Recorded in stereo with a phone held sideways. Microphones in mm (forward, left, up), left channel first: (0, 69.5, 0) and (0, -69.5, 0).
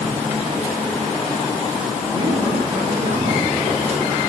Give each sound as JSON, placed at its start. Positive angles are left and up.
{"t": 2.1, "sound": "a woman speaking", "side_deg": -50, "distance_m": 9.0}